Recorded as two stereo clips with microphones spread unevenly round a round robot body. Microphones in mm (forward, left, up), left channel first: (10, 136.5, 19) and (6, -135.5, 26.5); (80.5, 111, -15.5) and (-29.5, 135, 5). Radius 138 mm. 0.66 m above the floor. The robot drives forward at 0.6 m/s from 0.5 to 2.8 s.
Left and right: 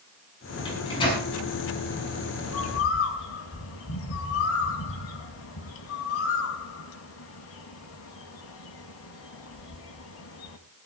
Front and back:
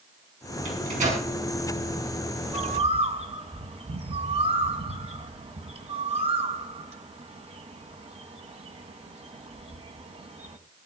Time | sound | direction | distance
0.7 | a microwave | 165° left | 6.5 m
2.4 | a bird | 130° left | 1.7 m